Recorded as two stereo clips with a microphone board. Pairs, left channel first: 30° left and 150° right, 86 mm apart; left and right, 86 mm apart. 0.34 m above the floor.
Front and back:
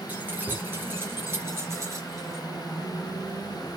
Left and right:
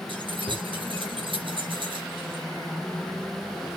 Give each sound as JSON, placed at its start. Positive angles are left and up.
{"t": 0.1, "sound": "keys jangling", "azimuth_deg": -80, "distance_m": 3.5}